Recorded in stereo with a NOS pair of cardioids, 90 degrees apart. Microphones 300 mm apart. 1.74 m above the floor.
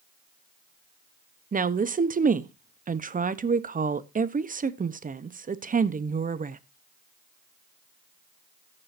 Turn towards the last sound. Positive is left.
turn(degrees=-25)